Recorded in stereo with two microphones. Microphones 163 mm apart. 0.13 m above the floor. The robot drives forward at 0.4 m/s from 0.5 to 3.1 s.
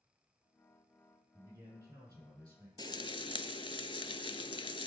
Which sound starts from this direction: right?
A man speaking, at 1.3 s.